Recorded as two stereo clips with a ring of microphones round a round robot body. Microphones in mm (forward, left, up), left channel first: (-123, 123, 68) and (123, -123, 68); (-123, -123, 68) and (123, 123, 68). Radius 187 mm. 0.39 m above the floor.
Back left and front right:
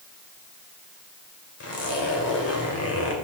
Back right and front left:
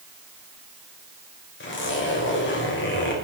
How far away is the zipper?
About 1.9 m.